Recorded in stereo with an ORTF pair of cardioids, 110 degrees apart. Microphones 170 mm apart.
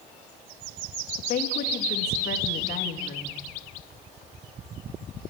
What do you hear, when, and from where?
1.2 s a woman speaking: 65° left, 2.5 m